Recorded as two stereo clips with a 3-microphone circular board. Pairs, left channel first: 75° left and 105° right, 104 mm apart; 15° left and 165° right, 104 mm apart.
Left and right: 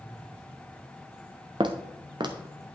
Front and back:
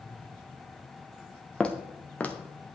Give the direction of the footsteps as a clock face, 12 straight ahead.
2 o'clock.